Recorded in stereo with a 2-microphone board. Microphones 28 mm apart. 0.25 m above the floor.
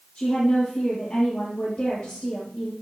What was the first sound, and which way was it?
A woman speaking, 20° left (ahead or behind).